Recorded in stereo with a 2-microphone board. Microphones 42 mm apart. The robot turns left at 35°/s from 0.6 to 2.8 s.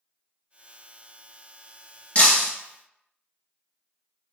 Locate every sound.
2.1 s breaking glass: 25° left (ahead or behind), 1.3 m; by 2.5 s 40° left (ahead or behind), 1.3 m